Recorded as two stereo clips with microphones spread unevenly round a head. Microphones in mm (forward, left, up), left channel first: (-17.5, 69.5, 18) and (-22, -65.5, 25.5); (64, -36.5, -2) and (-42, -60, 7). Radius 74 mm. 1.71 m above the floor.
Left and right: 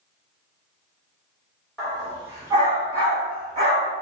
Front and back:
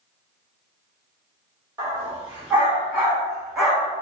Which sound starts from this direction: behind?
A dog barking, at 1.8 s.